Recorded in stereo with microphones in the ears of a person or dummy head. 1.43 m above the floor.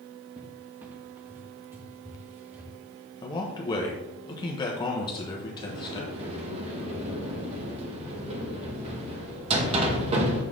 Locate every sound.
0.4 s a cupboard door: 15° right (ahead or behind), 0.8 m
3.2 s a man speaking: 25° left (ahead or behind), 0.9 m
5.6 s a sliding door: 35° right (ahead or behind), 1.1 m